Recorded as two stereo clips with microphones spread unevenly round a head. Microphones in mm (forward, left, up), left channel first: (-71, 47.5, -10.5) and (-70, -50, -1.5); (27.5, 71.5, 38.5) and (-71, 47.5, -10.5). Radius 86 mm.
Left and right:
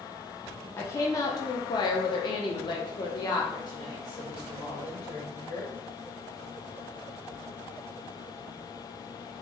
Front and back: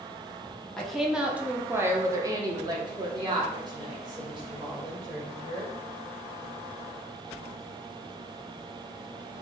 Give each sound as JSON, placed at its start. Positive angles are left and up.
{"t": 0.8, "sound": "a woman speaking", "azimuth_deg": 35, "distance_m": 0.8}